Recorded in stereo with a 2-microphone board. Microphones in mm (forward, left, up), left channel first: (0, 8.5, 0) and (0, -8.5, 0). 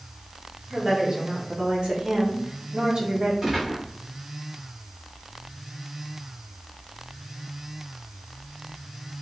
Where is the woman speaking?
55° right (ahead or behind), 1.3 m.